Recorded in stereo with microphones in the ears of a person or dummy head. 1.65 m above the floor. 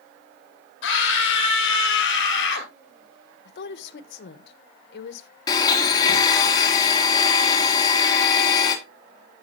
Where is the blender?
25° left (ahead or behind), 2.5 m.